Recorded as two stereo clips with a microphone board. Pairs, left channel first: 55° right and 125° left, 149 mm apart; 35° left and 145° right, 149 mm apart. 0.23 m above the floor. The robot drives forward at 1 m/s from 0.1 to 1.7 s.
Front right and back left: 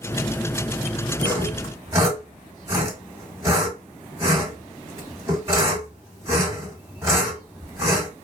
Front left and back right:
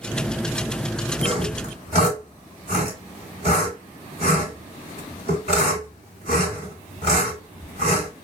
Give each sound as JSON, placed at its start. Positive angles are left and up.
{"t": 1.2, "sound": "sawing", "azimuth_deg": -165, "distance_m": 1.5}